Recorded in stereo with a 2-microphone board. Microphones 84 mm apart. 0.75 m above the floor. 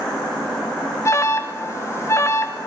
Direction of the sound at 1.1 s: 35° left (ahead or behind).